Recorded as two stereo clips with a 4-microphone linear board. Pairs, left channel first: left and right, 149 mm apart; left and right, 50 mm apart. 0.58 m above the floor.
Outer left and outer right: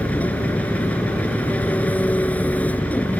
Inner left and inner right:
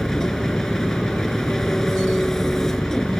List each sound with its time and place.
0.0 s an engine running: 10° left (ahead or behind)